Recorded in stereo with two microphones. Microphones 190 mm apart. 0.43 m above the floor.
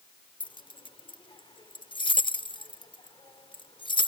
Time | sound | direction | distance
0.4 | keys jangling | 25° left (ahead or behind) | ?